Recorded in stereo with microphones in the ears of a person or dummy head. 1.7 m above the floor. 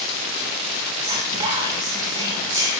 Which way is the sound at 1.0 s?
20° right (ahead or behind).